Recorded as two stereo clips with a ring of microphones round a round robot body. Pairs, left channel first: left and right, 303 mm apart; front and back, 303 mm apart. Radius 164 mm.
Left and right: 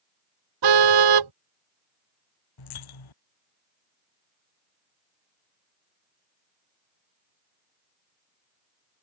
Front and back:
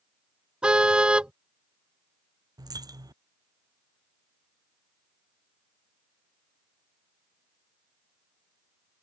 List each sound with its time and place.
0.6 s a car horn: 95° right
2.6 s a dropped coin: 100° left